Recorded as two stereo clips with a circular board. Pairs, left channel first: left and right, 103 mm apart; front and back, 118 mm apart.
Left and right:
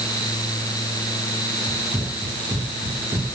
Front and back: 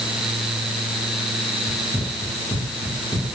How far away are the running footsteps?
About 6.5 m.